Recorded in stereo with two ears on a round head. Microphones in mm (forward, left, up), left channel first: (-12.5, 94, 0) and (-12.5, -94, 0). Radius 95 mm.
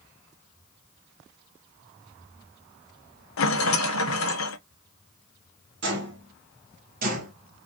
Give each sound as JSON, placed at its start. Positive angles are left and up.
{"t": 3.4, "sound": "a rattle", "side_deg": 75, "distance_m": 1.0}
{"t": 5.8, "sound": "footsteps", "side_deg": -60, "distance_m": 2.5}